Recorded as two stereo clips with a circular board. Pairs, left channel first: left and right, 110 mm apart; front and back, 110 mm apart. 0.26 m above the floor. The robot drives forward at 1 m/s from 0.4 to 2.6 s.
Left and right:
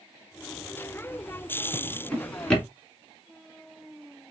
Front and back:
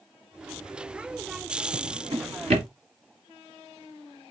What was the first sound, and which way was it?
A drawer, 165° left.